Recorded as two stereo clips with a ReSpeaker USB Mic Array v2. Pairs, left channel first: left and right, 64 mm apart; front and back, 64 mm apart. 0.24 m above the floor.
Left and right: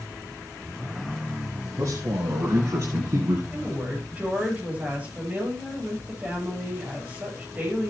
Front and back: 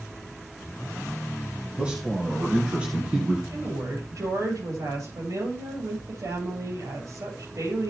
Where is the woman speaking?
155° right, 8.5 m.